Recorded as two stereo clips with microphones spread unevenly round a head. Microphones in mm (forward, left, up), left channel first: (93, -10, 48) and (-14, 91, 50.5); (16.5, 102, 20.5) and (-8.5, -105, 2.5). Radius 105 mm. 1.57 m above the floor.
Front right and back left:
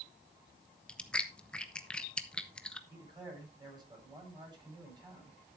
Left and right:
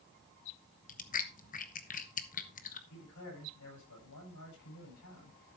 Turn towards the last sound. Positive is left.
turn(degrees=75)